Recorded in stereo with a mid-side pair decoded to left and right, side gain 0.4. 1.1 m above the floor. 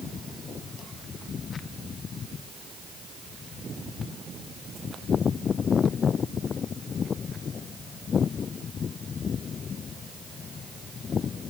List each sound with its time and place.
Only background noise.